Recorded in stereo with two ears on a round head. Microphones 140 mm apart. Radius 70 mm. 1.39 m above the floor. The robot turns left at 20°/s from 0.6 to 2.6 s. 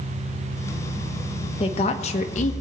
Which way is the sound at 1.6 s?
35° left (ahead or behind).